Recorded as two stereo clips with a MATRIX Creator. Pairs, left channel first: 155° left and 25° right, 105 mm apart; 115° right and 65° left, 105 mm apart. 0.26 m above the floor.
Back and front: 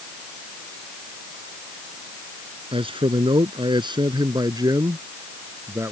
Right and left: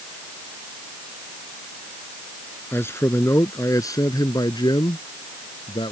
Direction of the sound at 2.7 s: 45° right.